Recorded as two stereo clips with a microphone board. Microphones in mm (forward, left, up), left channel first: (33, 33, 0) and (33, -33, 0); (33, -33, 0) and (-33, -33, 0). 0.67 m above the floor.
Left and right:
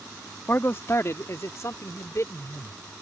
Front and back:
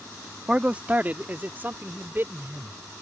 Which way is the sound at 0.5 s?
120° left.